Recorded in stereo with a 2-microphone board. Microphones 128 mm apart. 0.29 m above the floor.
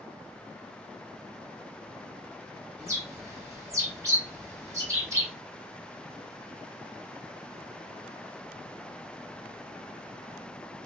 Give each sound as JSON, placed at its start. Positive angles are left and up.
{"t": 2.8, "sound": "a bird", "side_deg": -25, "distance_m": 1.4}